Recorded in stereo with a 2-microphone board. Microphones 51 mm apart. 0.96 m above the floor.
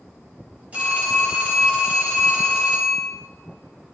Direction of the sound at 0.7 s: 30° right (ahead or behind).